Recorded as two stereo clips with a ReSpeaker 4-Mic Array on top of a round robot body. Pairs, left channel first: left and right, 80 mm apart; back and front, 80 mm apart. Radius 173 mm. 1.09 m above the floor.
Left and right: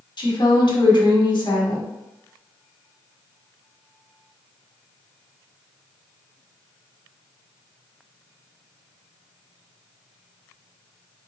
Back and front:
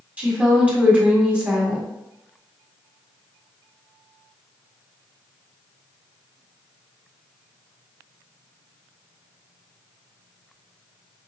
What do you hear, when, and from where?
0.2 s a woman speaking: 75° left, 1.5 m